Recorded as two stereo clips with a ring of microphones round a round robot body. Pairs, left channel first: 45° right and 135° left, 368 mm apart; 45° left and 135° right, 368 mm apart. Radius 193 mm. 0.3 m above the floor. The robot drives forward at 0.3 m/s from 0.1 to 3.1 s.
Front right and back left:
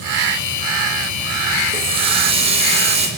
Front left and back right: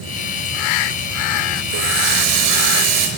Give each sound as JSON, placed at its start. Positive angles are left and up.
{"t": 1.7, "sound": "a running tap", "azimuth_deg": -150, "distance_m": 4.5}